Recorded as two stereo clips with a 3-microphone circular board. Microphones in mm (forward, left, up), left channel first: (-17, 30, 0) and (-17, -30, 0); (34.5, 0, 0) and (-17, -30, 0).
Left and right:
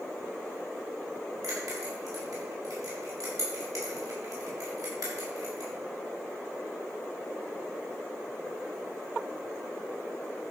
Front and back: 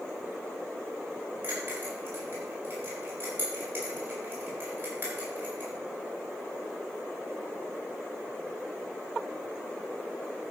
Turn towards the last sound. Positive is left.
turn(degrees=-100)